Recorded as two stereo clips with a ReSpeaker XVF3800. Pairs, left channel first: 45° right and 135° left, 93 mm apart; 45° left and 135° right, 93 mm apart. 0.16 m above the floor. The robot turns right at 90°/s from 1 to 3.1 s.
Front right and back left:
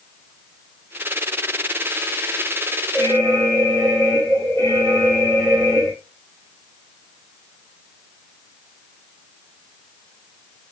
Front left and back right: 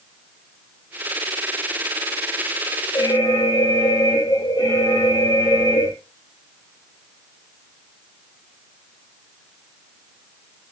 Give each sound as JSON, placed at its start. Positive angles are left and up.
{"t": 2.9, "sound": "an alarm", "azimuth_deg": 5, "distance_m": 5.0}